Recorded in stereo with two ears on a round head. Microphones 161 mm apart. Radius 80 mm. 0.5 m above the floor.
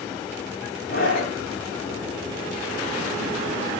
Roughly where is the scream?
Left.